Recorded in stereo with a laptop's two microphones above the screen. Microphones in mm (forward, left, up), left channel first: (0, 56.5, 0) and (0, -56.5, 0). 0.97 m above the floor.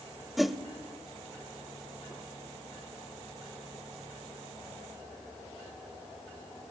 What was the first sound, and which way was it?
A whoosh, centre (ahead or behind).